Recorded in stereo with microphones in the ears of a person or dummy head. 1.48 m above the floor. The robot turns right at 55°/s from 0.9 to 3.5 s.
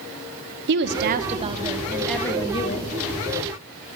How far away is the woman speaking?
About 0.7 m.